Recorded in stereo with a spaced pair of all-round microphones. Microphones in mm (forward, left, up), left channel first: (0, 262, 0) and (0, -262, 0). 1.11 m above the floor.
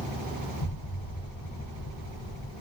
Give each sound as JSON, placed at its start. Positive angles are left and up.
{"t": 0.6, "sound": "an explosion", "side_deg": 35, "distance_m": 0.7}